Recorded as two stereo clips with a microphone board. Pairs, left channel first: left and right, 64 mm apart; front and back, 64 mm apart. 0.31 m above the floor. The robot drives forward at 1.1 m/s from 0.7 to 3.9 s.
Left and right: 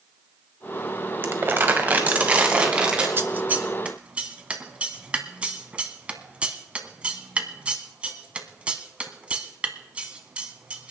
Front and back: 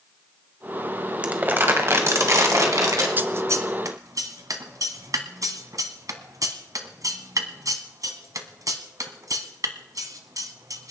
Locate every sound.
1.2 s crumpling: 120° right, 1.3 m; by 3.1 s 165° right, 2.5 m
3.2 s scissors: 130° right, 0.6 m; by 10.9 s 160° right, 1.2 m